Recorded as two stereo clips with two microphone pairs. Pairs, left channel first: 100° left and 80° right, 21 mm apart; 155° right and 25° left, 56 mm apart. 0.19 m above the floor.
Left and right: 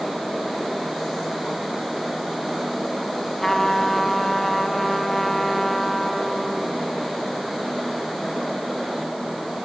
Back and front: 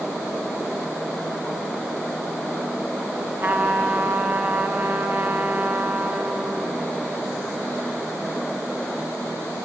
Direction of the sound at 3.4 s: 15° left.